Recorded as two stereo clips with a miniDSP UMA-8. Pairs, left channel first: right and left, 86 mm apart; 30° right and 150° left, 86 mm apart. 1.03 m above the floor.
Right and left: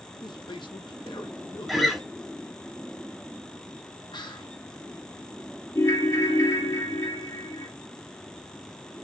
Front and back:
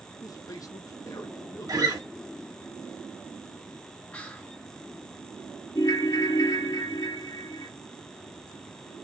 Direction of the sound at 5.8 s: 55° right.